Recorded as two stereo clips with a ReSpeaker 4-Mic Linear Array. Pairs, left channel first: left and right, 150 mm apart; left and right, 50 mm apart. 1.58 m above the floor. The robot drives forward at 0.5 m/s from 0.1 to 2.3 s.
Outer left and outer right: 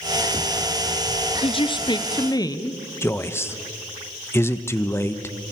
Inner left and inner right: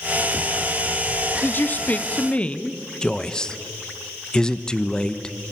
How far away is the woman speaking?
About 0.7 m.